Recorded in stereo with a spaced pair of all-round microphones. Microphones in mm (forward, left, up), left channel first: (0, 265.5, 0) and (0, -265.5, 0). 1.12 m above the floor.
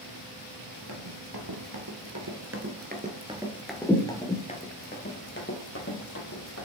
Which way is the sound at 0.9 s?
45° right (ahead or behind).